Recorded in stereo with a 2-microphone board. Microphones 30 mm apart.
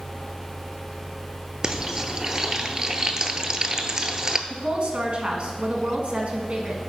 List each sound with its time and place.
1.6 s frying: 30° right (ahead or behind), 0.7 m
4.5 s a woman speaking: 45° right (ahead or behind), 1.6 m